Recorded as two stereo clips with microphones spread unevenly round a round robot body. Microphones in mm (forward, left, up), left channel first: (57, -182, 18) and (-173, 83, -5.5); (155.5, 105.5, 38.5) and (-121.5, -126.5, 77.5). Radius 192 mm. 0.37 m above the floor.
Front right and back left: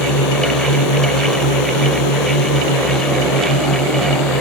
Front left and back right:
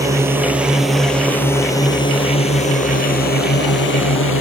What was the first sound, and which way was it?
A drone, 60° right.